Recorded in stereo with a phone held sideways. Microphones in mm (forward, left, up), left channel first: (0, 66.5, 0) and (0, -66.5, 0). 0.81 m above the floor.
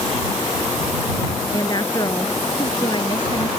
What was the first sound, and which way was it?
A woman speaking, 30° left (ahead or behind).